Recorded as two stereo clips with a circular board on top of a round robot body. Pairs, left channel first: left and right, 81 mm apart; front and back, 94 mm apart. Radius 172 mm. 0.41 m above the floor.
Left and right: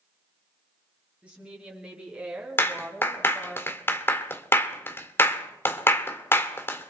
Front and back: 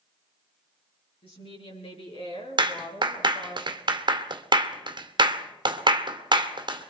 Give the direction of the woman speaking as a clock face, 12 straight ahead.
12 o'clock.